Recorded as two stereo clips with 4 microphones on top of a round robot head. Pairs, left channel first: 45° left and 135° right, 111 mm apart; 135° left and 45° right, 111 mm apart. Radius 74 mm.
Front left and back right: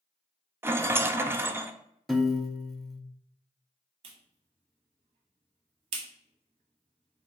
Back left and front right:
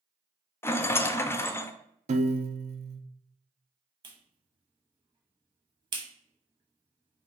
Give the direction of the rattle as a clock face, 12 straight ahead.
6 o'clock.